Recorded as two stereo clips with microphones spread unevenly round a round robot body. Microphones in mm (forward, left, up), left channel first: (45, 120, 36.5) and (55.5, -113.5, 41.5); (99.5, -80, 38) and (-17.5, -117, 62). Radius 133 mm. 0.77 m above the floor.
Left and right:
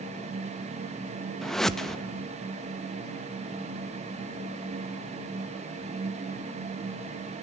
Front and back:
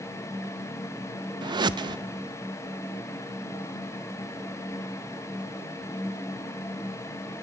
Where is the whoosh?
175° left, 0.8 m.